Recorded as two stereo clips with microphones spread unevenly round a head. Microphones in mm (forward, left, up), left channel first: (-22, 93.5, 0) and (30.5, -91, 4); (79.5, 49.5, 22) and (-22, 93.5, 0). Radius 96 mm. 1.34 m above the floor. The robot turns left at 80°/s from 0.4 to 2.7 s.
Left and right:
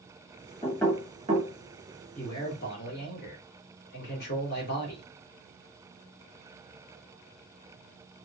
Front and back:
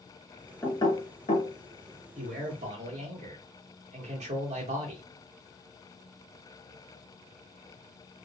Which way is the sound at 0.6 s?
35° left.